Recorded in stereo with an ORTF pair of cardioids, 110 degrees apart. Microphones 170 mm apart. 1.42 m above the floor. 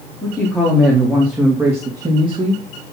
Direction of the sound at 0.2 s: 5° left.